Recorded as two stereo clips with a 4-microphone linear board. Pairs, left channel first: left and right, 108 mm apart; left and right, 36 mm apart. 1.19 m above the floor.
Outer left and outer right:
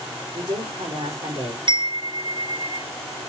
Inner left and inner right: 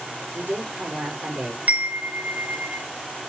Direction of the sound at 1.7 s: 45° right (ahead or behind).